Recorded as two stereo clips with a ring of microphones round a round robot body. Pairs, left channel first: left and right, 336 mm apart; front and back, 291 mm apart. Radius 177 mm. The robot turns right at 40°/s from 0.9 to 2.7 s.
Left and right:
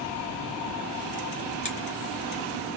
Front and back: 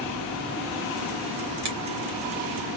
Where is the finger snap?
160° left, 4 m; by 1.8 s 165° left, 4 m.